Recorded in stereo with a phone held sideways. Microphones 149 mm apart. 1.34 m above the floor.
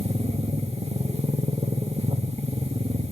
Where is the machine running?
40° right (ahead or behind), 1.6 m.